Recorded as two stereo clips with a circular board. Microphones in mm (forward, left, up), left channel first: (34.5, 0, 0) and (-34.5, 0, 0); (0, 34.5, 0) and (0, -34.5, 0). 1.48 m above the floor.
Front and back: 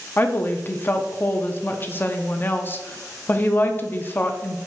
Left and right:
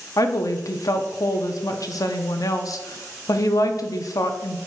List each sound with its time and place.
0.2 s a woman speaking: 60° left, 0.5 m